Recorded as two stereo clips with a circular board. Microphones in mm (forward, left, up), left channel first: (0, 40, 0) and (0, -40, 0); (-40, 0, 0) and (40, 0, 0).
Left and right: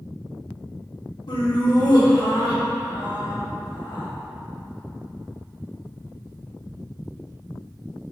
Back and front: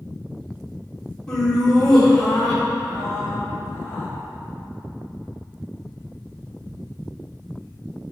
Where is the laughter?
100° left, 2.5 m; by 4.1 s 90° left, 4 m.